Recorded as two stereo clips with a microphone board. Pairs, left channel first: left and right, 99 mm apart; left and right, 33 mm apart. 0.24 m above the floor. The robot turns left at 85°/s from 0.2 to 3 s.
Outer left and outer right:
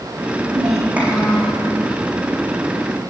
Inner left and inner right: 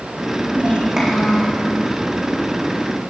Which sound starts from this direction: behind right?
A child speaking, at 0.5 s.